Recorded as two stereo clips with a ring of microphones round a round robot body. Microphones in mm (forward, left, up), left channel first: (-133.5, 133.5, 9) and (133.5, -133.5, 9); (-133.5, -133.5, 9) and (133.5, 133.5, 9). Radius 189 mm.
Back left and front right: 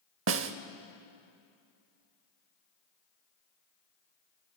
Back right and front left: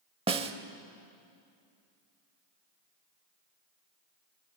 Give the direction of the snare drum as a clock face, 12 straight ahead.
1 o'clock.